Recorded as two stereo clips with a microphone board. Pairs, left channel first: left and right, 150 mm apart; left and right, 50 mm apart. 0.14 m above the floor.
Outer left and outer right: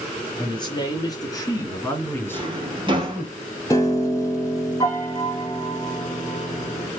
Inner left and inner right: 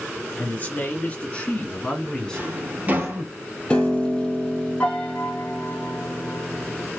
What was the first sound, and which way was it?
A man speaking, 30° left (ahead or behind).